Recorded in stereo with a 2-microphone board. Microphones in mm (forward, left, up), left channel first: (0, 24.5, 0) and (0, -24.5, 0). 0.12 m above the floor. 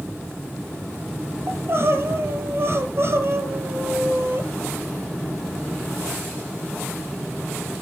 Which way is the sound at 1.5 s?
55° right (ahead or behind).